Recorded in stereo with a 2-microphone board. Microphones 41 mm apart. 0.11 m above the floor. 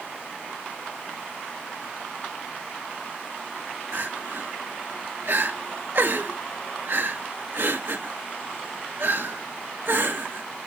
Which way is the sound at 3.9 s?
55° right (ahead or behind).